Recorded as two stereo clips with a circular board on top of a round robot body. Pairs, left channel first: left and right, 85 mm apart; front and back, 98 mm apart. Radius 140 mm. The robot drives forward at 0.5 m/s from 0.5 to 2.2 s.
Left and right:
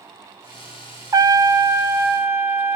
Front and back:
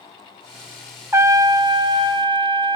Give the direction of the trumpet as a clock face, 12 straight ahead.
4 o'clock.